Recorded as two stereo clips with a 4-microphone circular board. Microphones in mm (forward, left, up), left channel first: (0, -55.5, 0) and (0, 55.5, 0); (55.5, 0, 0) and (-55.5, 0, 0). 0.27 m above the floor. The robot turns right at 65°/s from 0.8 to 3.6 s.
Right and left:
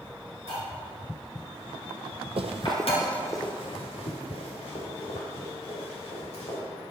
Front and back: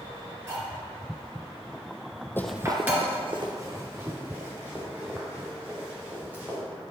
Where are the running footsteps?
65° left, 0.6 m; by 6.6 s 105° right, 5 m.